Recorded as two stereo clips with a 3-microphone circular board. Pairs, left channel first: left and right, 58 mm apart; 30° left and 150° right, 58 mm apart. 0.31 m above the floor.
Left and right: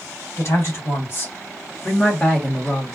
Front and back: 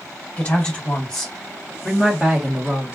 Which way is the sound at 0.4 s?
90° left.